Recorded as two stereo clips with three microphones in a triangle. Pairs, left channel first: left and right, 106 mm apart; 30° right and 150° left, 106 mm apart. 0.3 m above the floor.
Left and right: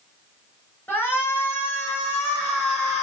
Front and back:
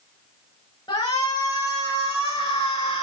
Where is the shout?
20° left, 4 m; by 3.0 s straight ahead, 3 m.